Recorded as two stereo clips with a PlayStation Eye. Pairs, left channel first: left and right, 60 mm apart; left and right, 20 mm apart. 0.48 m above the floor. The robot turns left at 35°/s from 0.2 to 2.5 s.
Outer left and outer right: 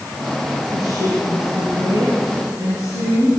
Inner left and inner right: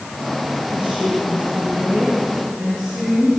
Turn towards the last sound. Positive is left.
turn(degrees=-125)